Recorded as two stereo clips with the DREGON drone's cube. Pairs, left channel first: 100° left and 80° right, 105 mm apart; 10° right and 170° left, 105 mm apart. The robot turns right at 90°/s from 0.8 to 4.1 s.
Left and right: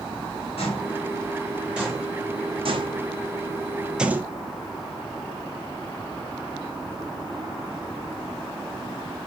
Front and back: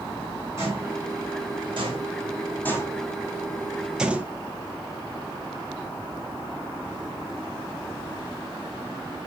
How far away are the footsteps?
About 4 m.